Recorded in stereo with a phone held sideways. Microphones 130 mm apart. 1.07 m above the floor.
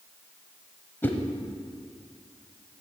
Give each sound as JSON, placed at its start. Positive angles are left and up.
{"t": 1.0, "sound": "a whoosh", "side_deg": 15, "distance_m": 1.1}